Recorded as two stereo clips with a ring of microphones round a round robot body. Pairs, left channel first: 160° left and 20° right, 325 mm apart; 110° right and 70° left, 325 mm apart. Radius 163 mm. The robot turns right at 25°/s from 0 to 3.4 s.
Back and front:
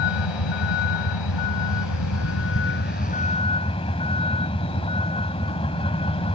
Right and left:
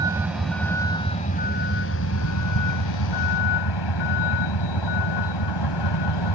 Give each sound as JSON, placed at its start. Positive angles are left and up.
{"t": 0.0, "sound": "a vehicle", "azimuth_deg": 145}